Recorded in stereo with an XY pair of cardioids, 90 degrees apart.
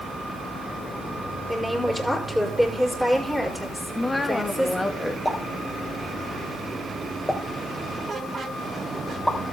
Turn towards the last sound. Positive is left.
turn(degrees=5)